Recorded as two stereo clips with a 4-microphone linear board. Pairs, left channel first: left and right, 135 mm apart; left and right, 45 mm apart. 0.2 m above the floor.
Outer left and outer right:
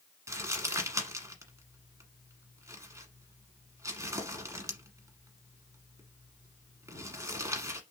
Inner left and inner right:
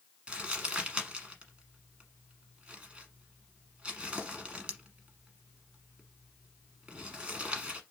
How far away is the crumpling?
About 1.2 m.